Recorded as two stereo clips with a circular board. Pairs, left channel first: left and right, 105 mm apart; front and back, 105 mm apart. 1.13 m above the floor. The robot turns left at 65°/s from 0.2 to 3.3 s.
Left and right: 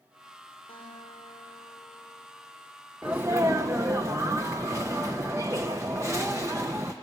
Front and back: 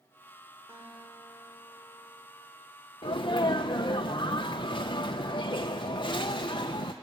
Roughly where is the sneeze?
Ahead.